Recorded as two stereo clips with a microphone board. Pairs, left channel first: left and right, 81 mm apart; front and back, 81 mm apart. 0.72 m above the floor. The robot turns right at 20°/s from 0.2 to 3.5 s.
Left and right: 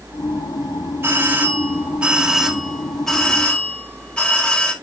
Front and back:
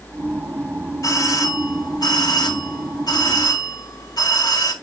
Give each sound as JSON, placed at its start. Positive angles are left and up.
{"t": 1.0, "sound": "a doorbell", "azimuth_deg": -30, "distance_m": 1.9}